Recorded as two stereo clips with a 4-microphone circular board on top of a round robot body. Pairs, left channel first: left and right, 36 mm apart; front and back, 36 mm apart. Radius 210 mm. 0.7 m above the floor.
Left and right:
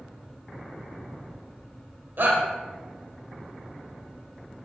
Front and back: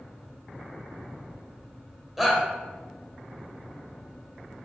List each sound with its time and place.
2.2 s a shout: 95° right, 1.9 m